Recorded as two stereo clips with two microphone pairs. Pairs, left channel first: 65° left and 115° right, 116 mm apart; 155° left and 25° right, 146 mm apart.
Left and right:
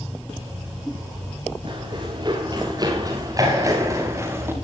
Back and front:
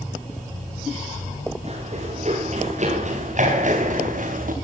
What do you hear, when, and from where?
1.6 s running footsteps: 65° right, 8.5 m; by 4.5 s 45° right, 5.5 m